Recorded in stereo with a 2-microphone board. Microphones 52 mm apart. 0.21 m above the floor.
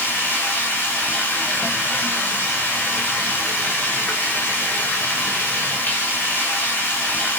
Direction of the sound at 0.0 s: 40° left (ahead or behind).